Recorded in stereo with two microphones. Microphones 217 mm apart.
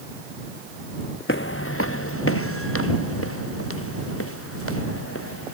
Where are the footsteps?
65° left (ahead or behind); by 5.5 s 90° left.